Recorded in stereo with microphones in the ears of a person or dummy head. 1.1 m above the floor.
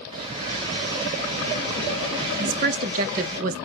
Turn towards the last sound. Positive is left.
turn(degrees=-45)  # may be behind; listen again after turning